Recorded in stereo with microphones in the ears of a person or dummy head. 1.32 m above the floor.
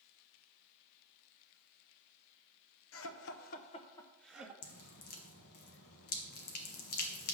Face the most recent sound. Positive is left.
turn(degrees=55)  # may be behind; listen again after turning